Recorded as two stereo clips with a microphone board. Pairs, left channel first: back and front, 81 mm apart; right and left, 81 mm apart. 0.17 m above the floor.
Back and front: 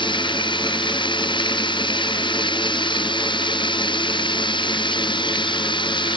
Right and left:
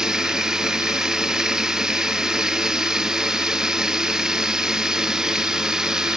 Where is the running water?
170° left.